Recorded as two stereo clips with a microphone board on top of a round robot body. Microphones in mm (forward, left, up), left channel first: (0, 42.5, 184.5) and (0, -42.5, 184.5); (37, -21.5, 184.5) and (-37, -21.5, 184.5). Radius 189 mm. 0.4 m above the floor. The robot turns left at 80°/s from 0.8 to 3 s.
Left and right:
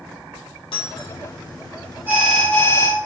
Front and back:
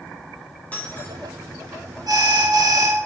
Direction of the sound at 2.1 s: 160° right.